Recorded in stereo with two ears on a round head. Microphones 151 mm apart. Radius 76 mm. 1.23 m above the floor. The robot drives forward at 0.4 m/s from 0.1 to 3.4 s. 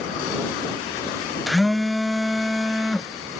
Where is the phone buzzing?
Centre (ahead or behind).